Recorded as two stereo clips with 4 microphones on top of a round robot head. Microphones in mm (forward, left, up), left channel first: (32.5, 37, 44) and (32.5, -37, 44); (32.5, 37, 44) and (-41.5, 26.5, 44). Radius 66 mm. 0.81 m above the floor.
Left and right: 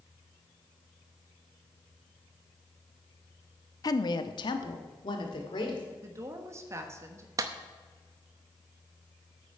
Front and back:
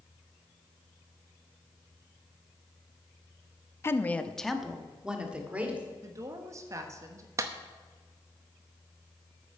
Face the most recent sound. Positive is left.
turn(degrees=-125)